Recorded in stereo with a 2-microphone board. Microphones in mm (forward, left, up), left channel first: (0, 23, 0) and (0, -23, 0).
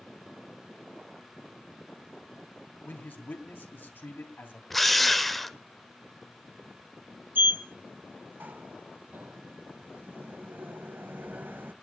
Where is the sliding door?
45° right (ahead or behind), 0.6 m.